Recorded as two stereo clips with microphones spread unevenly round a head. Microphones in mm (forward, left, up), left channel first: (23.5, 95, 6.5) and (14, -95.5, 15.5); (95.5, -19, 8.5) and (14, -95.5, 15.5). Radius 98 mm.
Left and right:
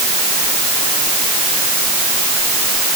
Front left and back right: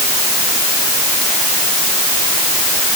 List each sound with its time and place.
Only background noise.